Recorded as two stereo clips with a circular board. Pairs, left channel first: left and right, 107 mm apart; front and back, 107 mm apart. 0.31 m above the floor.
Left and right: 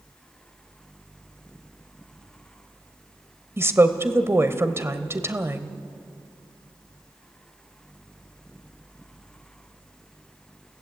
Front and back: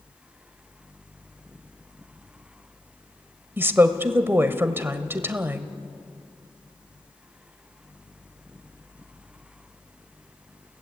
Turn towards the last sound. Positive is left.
turn(degrees=-130)